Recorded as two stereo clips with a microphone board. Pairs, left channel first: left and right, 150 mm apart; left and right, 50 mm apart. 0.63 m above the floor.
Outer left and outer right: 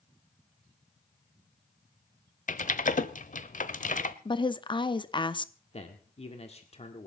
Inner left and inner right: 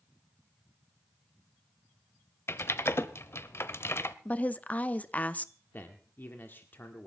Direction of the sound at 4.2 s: 35° left (ahead or behind).